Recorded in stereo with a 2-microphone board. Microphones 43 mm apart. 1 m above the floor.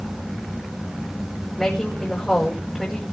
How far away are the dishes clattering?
No dishes clattering in this recording.